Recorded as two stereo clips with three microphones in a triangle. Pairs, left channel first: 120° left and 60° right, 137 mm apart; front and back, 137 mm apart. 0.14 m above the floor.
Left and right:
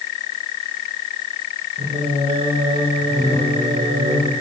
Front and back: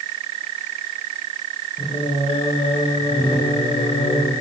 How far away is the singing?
About 6 m.